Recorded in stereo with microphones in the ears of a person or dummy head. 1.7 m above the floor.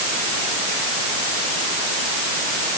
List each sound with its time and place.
Only background noise.